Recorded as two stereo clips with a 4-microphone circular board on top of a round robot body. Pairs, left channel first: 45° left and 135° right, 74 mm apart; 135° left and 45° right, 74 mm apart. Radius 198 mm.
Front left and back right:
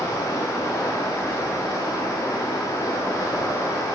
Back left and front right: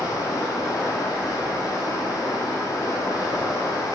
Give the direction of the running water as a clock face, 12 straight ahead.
9 o'clock.